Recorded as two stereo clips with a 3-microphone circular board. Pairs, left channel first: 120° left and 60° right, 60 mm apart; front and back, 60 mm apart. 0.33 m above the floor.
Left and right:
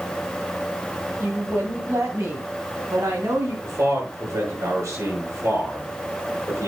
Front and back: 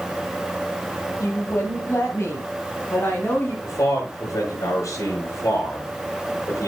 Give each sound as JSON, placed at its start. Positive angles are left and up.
{"t": 1.2, "sound": "a woman speaking", "azimuth_deg": -15, "distance_m": 3.0}
{"t": 3.6, "sound": "a man speaking", "azimuth_deg": -25, "distance_m": 5.5}